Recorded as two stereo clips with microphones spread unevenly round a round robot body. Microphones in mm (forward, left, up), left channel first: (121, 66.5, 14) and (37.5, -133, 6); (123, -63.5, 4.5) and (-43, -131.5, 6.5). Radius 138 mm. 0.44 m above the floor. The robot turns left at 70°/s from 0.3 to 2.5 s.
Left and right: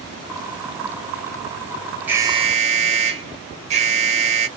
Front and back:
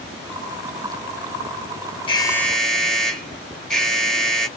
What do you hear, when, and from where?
2.1 s an alarm: 35° right, 1.0 m; by 4.5 s 65° right, 1.0 m